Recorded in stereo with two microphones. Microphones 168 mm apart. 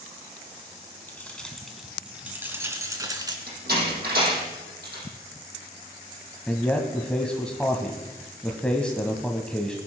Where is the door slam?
75° right (ahead or behind), 6.5 m.